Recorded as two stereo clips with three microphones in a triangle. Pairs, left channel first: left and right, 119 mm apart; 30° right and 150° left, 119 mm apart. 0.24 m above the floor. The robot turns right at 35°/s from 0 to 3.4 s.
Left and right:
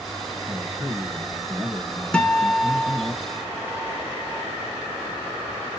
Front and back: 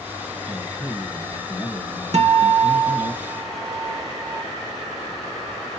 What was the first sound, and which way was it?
A man speaking, 45° right.